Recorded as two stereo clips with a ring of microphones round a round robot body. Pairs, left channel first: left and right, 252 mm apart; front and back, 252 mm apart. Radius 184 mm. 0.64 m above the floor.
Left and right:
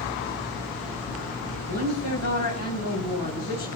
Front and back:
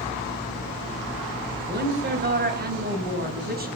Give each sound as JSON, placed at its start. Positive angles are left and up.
{"t": 1.7, "sound": "a woman speaking", "azimuth_deg": 130, "distance_m": 4.5}